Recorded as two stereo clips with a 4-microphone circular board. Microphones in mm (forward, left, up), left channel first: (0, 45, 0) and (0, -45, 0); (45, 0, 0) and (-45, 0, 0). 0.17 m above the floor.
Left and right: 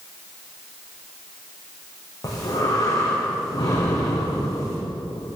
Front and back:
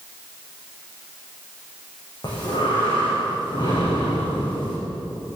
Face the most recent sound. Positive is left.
turn(degrees=40)